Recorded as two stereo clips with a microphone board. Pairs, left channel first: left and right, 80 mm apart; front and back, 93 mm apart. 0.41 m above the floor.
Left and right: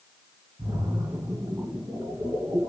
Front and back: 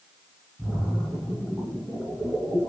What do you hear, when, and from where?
0.6 s a splash: 90° right, 3.5 m